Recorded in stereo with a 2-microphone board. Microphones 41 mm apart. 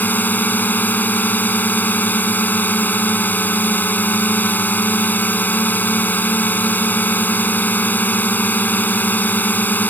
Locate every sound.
0.0 s a drone: 45° left (ahead or behind)